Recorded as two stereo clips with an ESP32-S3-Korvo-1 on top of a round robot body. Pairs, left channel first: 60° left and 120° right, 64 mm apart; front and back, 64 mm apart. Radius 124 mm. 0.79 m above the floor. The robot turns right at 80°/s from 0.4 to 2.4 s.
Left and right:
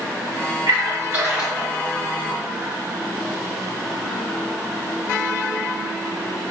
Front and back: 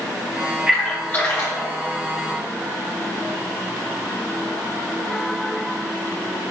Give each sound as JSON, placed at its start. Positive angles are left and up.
{"t": 0.7, "sound": "a splash", "azimuth_deg": -105, "distance_m": 2.0}